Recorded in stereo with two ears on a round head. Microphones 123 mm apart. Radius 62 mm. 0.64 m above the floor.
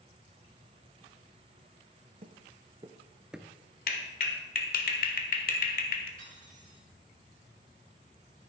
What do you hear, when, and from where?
2.2 s footsteps: 45° right (ahead or behind), 0.9 m; by 3.5 s 5° left (ahead or behind), 0.6 m
3.9 s a clap: 70° left (ahead or behind), 1.4 m
6.2 s cutlery clinking: 65° right (ahead or behind), 4.5 m